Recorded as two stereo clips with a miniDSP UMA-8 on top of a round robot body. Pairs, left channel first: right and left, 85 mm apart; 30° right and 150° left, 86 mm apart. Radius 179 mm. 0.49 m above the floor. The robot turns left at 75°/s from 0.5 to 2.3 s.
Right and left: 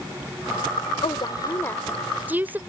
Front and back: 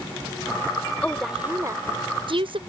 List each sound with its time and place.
1.0 s a woman speaking: 105° right; by 2.6 s 160° left